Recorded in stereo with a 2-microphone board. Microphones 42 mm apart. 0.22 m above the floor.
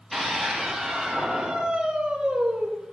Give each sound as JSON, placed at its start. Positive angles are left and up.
{"t": 0.1, "sound": "a scream", "side_deg": 5, "distance_m": 6.5}